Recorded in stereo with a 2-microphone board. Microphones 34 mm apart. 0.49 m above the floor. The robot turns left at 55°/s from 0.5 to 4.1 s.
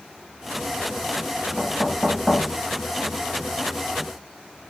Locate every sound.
1.6 s knocking: 15° left (ahead or behind), 3 m; by 2.5 s 30° right (ahead or behind), 3 m